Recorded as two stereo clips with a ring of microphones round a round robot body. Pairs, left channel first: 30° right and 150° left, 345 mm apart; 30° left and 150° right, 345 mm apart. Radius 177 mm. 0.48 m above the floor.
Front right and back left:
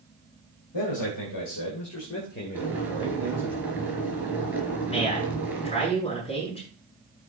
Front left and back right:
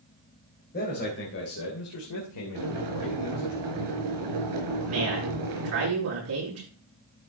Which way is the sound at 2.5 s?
125° right.